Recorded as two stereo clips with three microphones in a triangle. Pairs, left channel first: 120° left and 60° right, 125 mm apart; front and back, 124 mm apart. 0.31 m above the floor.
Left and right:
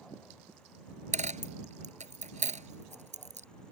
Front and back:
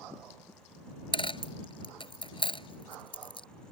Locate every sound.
1.1 s a dropped coin: 45° right